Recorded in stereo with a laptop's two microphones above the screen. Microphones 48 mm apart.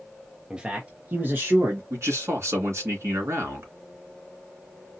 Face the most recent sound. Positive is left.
turn(degrees=-75)  # may be behind; listen again after turning